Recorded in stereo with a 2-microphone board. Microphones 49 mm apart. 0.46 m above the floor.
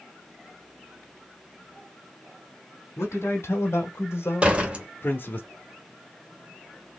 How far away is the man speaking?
About 1.9 m.